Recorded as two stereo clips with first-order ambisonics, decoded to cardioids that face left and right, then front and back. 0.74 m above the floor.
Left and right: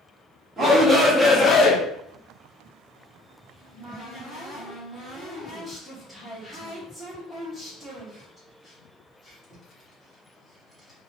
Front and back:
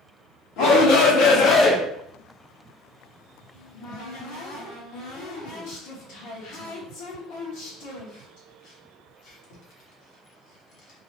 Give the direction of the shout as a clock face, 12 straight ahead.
1 o'clock.